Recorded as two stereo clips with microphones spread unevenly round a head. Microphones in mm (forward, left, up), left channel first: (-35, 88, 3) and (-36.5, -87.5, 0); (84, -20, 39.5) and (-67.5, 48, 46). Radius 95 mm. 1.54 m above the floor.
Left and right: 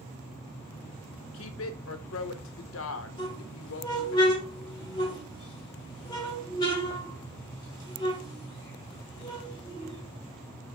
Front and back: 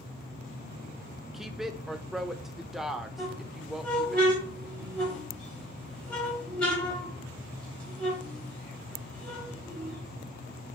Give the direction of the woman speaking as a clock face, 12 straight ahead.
10 o'clock.